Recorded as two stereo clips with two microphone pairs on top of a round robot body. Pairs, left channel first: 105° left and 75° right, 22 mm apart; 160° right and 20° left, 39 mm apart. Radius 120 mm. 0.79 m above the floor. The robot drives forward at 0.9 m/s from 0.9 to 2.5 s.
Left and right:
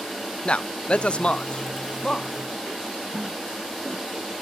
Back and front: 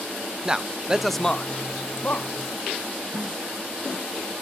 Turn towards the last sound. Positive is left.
turn(degrees=-35)